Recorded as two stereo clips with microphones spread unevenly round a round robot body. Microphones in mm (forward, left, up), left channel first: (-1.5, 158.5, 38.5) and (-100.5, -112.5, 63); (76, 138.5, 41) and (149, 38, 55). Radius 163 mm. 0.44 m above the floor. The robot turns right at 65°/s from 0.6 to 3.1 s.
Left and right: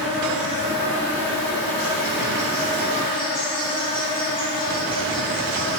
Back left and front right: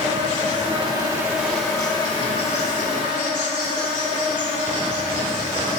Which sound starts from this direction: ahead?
An insect, at 0.0 s.